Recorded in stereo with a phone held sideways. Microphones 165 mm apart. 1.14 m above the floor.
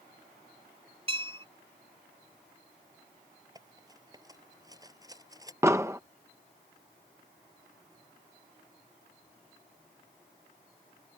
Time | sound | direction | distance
1.1 | a bell | 35° right (ahead or behind) | ?
3.5 | cutlery clinking | 20° right (ahead or behind) | ?
5.6 | an explosion | 15° right (ahead or behind) | ?